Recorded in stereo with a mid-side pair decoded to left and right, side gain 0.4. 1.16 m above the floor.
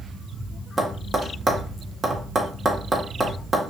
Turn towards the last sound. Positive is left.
turn(degrees=-25)